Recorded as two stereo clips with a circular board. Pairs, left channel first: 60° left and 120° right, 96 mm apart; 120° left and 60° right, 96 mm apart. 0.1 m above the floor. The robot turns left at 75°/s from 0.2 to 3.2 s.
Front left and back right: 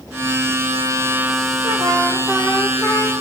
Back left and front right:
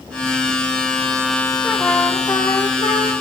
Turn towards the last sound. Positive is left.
turn(degrees=100)